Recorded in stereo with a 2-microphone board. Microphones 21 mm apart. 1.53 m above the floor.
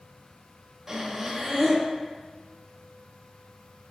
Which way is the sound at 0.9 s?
20° right (ahead or behind).